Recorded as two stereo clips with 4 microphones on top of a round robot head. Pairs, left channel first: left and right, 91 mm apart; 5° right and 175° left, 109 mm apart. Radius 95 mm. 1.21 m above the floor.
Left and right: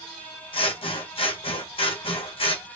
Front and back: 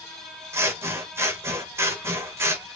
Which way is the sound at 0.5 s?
110° left.